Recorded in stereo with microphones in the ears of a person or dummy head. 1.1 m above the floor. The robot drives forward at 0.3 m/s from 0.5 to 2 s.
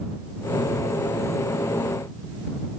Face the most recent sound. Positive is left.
No sound to turn to.